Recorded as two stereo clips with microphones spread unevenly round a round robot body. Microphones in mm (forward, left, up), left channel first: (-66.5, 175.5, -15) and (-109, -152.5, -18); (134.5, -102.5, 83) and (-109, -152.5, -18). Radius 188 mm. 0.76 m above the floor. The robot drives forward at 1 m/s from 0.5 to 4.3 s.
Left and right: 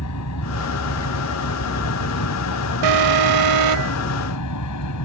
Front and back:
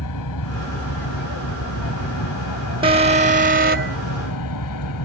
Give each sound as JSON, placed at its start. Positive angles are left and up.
{"t": 0.0, "sound": "an aircraft", "azimuth_deg": 30}
{"t": 2.8, "sound": "an alarm", "azimuth_deg": -100}